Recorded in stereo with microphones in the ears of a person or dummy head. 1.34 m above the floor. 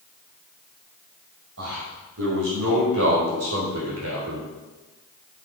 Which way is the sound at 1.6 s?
70° right (ahead or behind).